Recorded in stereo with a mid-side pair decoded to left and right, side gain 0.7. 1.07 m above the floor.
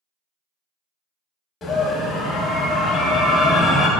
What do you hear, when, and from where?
1.6 s a scream: 30° left, 0.8 m